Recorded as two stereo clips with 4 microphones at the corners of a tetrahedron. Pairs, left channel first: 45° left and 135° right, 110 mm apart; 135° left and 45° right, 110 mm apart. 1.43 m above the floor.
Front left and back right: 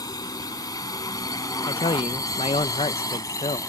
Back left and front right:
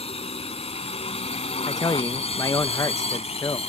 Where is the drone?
105° left.